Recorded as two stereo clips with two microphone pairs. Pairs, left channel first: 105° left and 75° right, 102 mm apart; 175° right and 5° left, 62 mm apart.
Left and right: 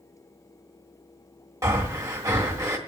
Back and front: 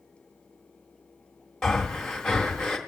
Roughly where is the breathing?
Right.